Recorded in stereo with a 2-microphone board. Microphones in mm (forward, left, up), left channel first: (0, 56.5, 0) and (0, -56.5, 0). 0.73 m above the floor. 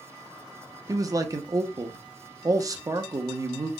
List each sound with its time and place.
0.9 s a man speaking: 30° right (ahead or behind), 0.5 m